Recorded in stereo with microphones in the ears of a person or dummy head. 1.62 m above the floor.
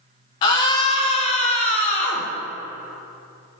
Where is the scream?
20° left (ahead or behind), 0.5 m; by 2.3 s 40° left (ahead or behind), 1.4 m.